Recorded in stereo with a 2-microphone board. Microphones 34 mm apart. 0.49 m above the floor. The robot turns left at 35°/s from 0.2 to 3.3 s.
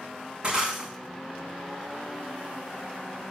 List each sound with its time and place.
0.4 s breaking glass: 30° right (ahead or behind), 6.5 m; by 0.9 s 15° right (ahead or behind), 6.5 m